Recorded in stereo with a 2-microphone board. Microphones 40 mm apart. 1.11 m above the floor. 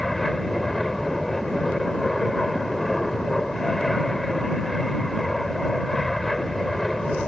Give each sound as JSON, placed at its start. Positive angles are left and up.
{"t": 0.0, "sound": "an aircraft", "side_deg": 5}